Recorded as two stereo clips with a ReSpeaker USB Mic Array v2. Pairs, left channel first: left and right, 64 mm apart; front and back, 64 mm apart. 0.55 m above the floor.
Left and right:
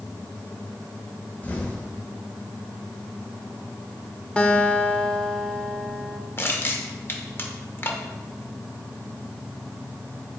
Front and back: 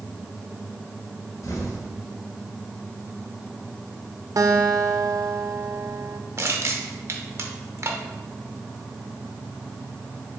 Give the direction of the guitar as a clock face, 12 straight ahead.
7 o'clock.